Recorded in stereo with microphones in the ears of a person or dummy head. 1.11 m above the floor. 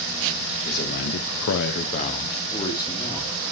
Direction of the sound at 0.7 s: 40° left (ahead or behind).